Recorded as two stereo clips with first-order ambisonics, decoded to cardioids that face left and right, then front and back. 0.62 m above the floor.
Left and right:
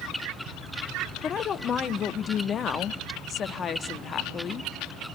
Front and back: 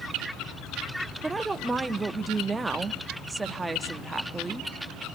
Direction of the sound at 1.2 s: 110° left.